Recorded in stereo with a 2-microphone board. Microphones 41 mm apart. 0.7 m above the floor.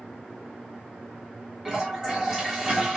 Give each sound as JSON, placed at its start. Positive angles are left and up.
{"t": 1.6, "sound": "a toilet flushing", "side_deg": -20, "distance_m": 0.9}